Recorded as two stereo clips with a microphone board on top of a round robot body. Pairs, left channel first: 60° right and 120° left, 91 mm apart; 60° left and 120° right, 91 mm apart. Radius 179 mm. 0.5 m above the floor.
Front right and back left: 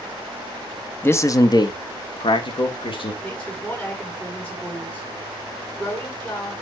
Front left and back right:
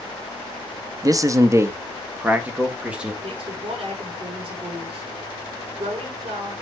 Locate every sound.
1.0 s a man speaking: 110° right, 1.0 m; by 3.1 s 40° right, 2.5 m
3.2 s a woman speaking: 135° right, 6 m